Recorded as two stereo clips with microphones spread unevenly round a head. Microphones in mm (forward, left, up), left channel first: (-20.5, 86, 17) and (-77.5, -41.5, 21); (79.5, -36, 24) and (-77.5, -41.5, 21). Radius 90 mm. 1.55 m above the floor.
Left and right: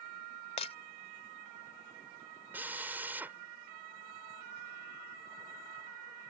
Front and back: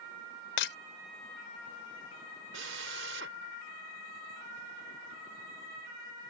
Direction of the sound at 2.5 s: 170° left.